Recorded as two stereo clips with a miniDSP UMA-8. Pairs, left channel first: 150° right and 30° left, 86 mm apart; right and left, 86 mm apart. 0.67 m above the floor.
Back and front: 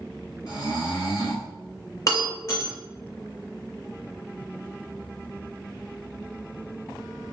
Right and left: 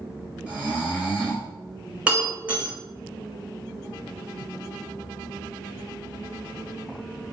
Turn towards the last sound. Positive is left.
turn(degrees=165)